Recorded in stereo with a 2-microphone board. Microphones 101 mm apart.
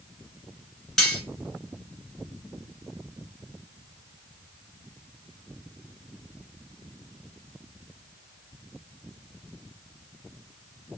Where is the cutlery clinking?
Centre (ahead or behind), 1.7 m.